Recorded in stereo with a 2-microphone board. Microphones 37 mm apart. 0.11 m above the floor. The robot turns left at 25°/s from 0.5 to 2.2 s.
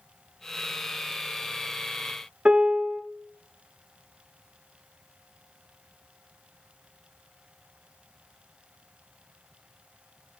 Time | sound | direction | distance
2.5 | a piano | 30° right (ahead or behind) | 0.5 m